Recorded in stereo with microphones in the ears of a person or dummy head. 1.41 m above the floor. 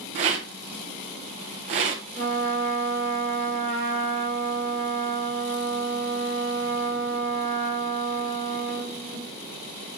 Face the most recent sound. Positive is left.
turn(degrees=5)  # may be behind; listen again after turning